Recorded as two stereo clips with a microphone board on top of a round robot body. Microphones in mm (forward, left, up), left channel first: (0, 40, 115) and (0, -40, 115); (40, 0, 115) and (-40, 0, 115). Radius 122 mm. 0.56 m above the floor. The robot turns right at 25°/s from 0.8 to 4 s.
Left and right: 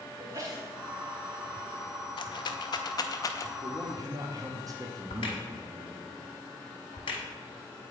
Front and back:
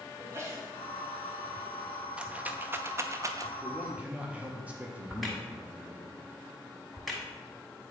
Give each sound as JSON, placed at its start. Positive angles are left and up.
{"t": 0.2, "sound": "a sneeze", "azimuth_deg": -130, "distance_m": 1.2}
{"t": 2.2, "sound": "a rattle", "azimuth_deg": 105, "distance_m": 0.6}
{"t": 3.6, "sound": "a man speaking", "azimuth_deg": -120, "distance_m": 0.9}
{"t": 5.1, "sound": "a crack", "azimuth_deg": 90, "distance_m": 1.0}